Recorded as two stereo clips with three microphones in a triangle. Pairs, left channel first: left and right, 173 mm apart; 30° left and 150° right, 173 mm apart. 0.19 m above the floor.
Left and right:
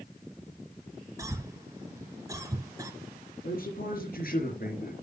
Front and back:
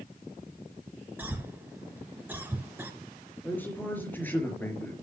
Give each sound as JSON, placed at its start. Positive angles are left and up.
{"t": 1.2, "sound": "a cough", "azimuth_deg": -95, "distance_m": 1.1}
{"t": 3.4, "sound": "a man speaking", "azimuth_deg": 105, "distance_m": 3.5}